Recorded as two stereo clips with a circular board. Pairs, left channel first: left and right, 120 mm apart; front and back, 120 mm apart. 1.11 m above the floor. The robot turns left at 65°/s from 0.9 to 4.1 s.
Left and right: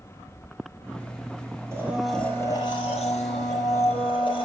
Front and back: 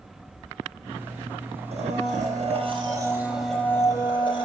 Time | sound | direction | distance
1.7 | a blender | 155° right | 5.5 m